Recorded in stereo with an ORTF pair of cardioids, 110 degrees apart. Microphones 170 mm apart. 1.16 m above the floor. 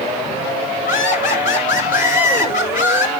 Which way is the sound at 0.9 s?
55° left.